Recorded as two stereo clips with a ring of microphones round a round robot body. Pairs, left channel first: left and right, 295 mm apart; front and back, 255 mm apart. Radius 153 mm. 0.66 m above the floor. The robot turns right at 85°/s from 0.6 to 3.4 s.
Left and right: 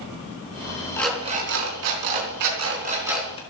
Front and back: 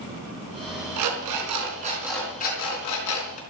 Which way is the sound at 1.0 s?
170° left.